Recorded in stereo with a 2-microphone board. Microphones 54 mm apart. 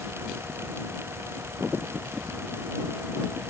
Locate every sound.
Only background noise.